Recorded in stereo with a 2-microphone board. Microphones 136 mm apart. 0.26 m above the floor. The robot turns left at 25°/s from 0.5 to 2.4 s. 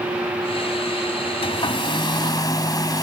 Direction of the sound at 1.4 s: 45° left (ahead or behind).